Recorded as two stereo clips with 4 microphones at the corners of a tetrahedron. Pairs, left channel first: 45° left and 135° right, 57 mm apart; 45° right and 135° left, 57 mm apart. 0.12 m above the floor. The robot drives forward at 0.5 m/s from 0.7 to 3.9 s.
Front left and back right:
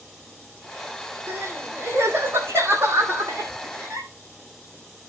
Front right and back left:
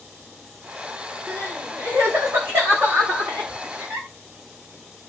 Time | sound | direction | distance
1.3 | crying | 175° left | 7 m